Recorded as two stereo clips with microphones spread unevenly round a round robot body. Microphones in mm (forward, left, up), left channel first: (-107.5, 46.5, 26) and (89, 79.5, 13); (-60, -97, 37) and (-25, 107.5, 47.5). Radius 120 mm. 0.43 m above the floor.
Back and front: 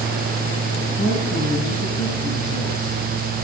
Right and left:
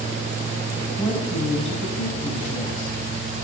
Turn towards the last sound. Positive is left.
turn(degrees=-130)